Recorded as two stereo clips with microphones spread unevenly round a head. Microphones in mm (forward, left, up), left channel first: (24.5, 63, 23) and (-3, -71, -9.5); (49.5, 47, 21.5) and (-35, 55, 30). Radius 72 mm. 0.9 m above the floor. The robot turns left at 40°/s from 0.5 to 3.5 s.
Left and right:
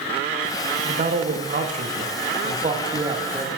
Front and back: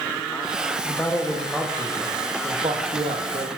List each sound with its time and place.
0.8 s a man speaking: 70° right, 1.3 m; by 3.5 s 175° right, 1.3 m